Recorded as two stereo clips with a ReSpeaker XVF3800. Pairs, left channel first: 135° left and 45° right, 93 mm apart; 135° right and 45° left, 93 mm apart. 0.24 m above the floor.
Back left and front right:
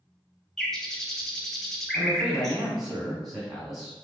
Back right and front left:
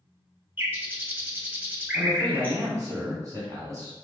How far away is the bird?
About 0.7 m.